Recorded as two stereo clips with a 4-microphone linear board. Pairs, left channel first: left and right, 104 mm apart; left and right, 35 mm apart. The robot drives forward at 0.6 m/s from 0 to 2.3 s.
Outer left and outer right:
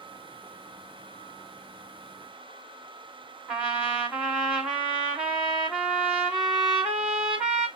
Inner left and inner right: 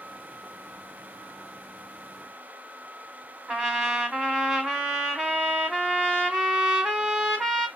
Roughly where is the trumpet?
Centre.